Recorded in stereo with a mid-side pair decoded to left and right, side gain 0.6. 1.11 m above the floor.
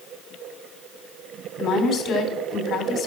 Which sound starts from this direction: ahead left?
A woman speaking, at 1.6 s.